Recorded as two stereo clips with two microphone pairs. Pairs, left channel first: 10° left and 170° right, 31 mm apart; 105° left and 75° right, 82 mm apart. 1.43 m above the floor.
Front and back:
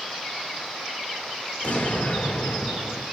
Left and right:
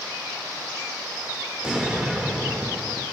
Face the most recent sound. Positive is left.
turn(degrees=0)